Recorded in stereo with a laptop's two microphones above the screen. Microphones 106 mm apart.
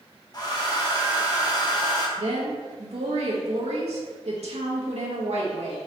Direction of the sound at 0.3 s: 40° left (ahead or behind).